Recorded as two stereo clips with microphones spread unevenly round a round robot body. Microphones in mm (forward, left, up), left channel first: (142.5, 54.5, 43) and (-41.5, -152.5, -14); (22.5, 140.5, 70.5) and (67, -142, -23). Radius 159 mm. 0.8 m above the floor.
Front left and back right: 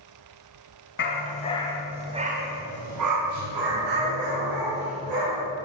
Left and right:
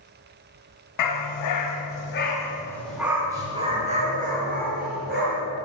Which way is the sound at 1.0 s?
105° left.